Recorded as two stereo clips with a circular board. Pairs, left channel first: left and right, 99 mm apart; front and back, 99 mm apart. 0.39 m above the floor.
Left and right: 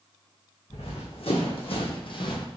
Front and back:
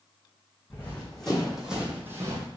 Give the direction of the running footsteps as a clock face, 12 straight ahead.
9 o'clock.